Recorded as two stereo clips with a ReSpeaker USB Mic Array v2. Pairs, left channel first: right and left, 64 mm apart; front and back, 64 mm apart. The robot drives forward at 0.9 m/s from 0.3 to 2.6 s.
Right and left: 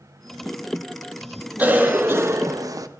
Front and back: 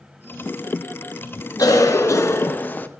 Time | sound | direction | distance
1.6 | a cough | 25° left | 1.4 m